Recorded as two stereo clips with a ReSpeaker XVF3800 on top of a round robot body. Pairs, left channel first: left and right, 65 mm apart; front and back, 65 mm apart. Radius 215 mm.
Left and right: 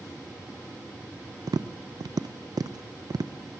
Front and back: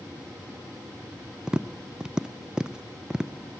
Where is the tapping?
100° right, 0.6 m.